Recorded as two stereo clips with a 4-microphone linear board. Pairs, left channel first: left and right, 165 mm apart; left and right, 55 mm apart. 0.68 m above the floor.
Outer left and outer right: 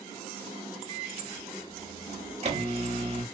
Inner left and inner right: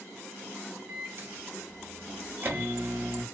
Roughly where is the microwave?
Right.